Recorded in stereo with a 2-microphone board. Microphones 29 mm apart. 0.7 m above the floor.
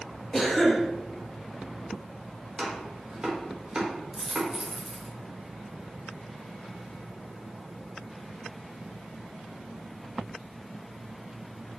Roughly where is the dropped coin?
Centre.